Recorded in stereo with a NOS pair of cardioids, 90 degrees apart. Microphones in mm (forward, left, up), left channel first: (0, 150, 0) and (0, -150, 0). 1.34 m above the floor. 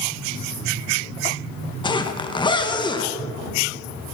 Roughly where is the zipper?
Ahead.